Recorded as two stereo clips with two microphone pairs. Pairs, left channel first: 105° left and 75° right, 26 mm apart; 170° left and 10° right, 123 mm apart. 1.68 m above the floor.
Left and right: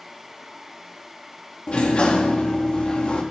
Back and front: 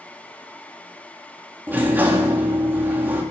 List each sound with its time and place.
1.7 s a sliding door: 60° left, 2 m